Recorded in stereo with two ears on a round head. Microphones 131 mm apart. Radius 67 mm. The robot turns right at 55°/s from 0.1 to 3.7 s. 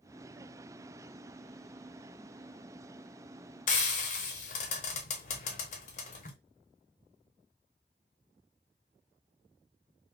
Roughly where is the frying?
Left.